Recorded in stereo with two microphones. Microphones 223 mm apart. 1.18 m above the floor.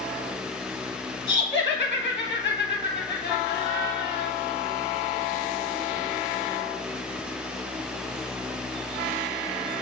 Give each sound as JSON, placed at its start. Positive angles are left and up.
{"t": 1.3, "sound": "laughter", "side_deg": 25, "distance_m": 0.8}